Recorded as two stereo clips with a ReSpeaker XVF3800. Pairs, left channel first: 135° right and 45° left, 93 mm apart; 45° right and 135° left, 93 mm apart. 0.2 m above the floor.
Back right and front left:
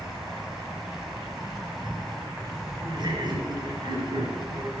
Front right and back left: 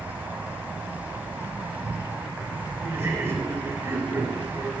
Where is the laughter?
70° left, 3 m.